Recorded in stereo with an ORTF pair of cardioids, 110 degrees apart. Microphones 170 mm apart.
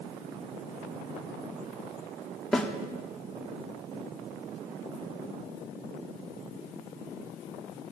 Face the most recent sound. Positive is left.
turn(degrees=5)